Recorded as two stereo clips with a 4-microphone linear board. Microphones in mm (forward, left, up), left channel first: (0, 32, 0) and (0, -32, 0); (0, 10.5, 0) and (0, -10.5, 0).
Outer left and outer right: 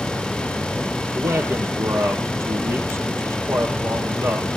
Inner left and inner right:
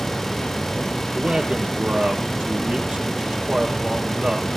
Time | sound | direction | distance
1.1 | a man speaking | 50° right (ahead or behind) | 4.5 m